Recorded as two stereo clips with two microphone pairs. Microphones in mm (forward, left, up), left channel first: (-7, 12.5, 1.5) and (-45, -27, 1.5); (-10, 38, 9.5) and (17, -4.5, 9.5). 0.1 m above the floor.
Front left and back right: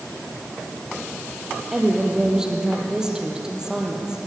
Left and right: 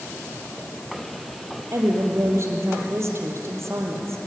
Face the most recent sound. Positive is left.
turn(degrees=-60)